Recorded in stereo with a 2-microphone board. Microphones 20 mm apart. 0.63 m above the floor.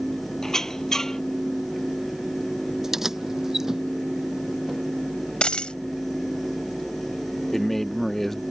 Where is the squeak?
25° left (ahead or behind).